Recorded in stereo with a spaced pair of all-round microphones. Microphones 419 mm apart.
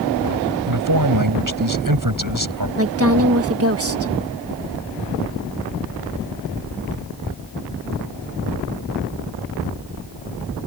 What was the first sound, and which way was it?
A man speaking, 45° right (ahead or behind).